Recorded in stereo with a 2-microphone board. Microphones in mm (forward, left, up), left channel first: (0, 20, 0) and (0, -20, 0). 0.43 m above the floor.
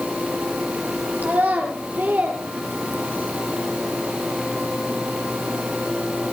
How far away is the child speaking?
About 5 m.